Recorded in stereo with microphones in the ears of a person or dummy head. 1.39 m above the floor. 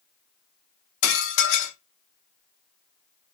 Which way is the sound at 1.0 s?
65° left (ahead or behind).